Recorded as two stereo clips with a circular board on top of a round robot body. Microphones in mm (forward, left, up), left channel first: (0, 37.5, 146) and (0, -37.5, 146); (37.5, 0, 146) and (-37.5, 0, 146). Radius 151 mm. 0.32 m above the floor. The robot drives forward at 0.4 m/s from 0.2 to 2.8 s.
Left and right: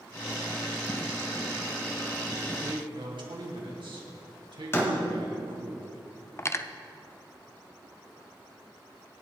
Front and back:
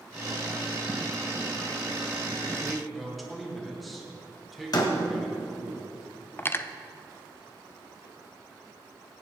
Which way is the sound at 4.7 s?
30° left.